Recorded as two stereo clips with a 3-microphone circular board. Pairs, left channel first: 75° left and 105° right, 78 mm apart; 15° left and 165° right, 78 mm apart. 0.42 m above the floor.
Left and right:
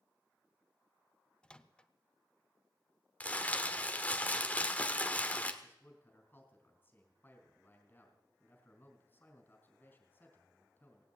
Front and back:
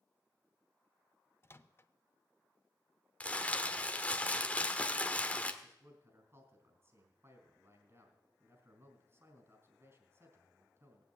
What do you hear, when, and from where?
1.4 s a microwave: 5° left, 0.6 m
3.2 s crumpling: 50° left, 1.2 m
5.6 s a man speaking: 140° left, 3.5 m